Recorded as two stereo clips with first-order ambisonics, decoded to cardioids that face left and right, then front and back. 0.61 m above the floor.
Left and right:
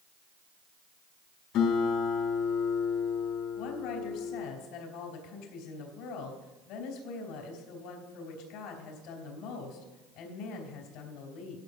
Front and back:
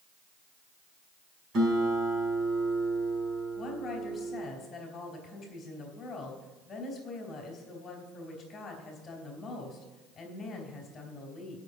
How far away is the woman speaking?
About 3 m.